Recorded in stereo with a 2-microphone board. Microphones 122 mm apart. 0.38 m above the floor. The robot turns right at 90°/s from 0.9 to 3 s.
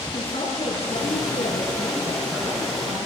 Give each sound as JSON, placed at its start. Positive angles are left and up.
{"t": 0.1, "sound": "a woman speaking", "azimuth_deg": 60, "distance_m": 4.0}